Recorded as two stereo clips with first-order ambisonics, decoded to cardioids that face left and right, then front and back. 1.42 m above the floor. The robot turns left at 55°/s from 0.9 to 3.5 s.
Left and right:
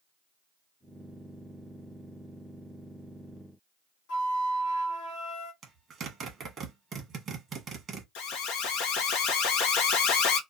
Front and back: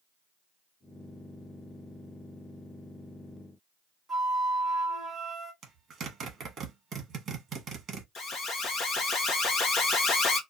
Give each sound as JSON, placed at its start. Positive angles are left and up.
{"t": 4.1, "sound": "a flute", "azimuth_deg": 85, "distance_m": 1.4}
{"t": 5.6, "sound": "a zipper", "azimuth_deg": -140, "distance_m": 0.9}
{"t": 8.2, "sound": "an alarm", "azimuth_deg": 60, "distance_m": 0.8}